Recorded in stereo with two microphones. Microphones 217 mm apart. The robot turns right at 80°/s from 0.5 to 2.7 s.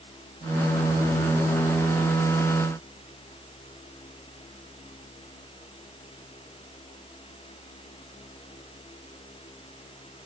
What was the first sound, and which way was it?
Only background noise.